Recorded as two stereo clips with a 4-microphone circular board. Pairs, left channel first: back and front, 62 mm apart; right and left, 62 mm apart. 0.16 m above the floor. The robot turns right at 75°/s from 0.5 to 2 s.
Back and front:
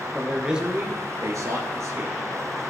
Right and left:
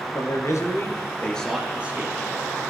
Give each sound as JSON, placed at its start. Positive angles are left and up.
{"t": 0.1, "sound": "a man speaking", "azimuth_deg": -80, "distance_m": 2.5}